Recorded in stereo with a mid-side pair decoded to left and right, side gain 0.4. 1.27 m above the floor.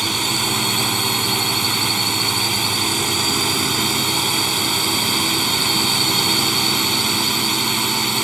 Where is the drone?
25° right.